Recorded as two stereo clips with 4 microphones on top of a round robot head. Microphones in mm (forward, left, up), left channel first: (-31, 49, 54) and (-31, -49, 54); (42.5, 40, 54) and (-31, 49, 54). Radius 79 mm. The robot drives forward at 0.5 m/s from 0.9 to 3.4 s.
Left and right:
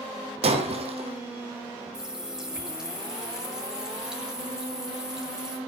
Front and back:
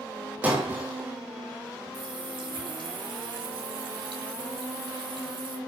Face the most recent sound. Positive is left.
turn(degrees=-175)